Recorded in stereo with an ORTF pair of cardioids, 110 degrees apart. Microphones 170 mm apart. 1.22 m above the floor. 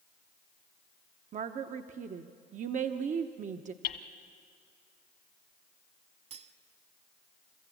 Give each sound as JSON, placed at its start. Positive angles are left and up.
{"t": 1.3, "sound": "a woman speaking", "azimuth_deg": -50, "distance_m": 1.0}
{"t": 3.8, "sound": "hammering", "azimuth_deg": 65, "distance_m": 1.8}
{"t": 6.3, "sound": "cutlery clinking", "azimuth_deg": -40, "distance_m": 1.4}